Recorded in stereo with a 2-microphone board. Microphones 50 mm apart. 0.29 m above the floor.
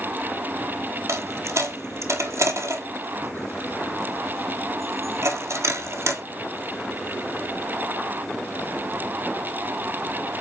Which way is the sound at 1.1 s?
80° right.